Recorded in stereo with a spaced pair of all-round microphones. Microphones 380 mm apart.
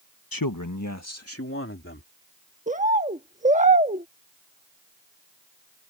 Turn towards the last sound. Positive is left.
turn(degrees=-20)  # may be behind; listen again after turning